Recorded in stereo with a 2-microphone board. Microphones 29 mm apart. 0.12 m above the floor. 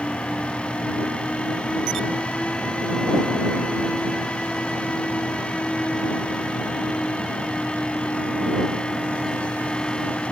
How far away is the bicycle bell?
I don't hear a bicycle bell.